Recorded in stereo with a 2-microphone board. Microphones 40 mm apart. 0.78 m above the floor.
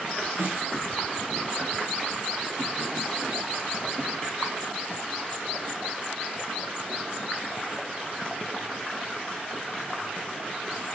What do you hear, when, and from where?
0.4 s a snare drum: 70° right (ahead or behind), 1.1 m